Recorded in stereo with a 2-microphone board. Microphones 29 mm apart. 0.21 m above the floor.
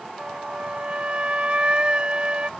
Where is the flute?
35° right (ahead or behind).